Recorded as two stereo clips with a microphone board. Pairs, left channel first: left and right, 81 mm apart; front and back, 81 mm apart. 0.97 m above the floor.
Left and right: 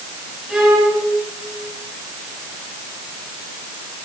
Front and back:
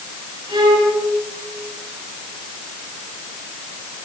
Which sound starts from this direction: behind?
A violin, at 0.5 s.